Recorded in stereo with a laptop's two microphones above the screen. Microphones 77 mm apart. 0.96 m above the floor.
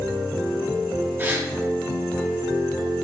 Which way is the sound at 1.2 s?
30° right (ahead or behind).